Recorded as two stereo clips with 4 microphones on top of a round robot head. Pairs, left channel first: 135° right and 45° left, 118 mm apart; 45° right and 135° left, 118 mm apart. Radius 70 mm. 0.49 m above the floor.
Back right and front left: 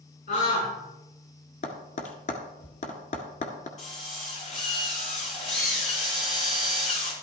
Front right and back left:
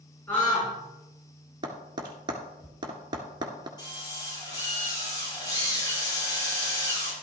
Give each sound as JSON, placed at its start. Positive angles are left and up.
{"t": 0.3, "sound": "a scream", "azimuth_deg": -120, "distance_m": 6.5}
{"t": 1.6, "sound": "tapping", "azimuth_deg": -170, "distance_m": 1.5}
{"t": 3.8, "sound": "a drill", "azimuth_deg": -105, "distance_m": 6.0}